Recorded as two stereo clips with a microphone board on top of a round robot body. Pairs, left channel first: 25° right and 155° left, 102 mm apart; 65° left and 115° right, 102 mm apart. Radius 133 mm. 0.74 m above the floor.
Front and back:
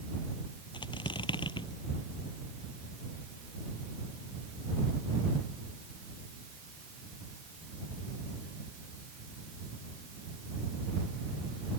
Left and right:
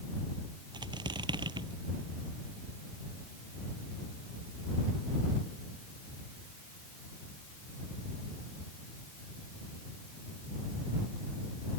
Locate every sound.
0.7 s a squeak: 65° right